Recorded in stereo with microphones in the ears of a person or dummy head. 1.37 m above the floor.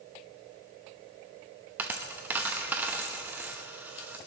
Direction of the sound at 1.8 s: 5° right (ahead or behind).